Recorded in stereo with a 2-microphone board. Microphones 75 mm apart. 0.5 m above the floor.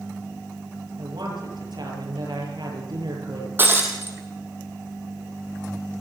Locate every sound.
1.0 s a woman speaking: 80° right, 8.5 m
3.6 s breaking glass: 25° right (ahead or behind), 3 m